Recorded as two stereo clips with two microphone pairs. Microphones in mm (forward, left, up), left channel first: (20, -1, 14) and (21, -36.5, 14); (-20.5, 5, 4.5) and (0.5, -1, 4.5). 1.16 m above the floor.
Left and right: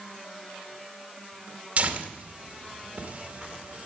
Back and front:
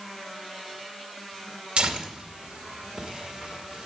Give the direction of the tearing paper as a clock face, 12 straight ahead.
2 o'clock.